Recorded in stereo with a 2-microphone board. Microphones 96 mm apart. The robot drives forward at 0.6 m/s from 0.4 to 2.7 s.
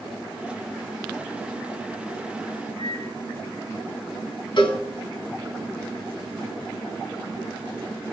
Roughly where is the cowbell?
Left.